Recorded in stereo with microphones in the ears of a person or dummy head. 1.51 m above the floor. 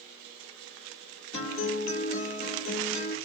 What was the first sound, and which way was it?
A guitar, 35° left (ahead or behind).